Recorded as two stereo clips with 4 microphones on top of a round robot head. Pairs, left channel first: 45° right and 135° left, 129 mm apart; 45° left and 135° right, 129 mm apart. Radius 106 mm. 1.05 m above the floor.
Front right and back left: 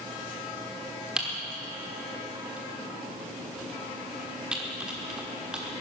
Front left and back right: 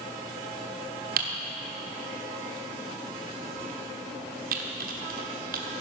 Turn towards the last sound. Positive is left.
turn(degrees=-145)